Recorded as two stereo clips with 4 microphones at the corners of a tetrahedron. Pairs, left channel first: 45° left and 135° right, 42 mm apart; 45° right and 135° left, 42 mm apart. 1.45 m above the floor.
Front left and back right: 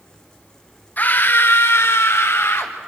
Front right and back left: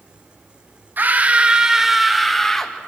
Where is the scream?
95° left, 1.4 m; by 2.7 s 35° left, 2.5 m.